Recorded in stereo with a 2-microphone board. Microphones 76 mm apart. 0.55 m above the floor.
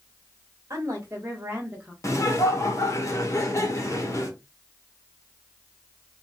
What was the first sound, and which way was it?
A woman speaking, 35° right (ahead or behind).